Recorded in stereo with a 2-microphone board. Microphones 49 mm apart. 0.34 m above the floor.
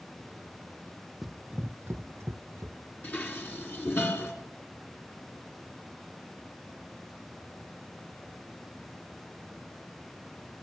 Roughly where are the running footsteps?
Centre.